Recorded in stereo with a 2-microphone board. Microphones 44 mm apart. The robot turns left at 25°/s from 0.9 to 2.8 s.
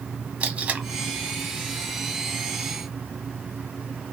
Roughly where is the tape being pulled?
Right.